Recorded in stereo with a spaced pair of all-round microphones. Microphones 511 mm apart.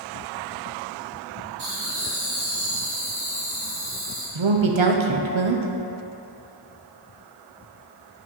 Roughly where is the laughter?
Right.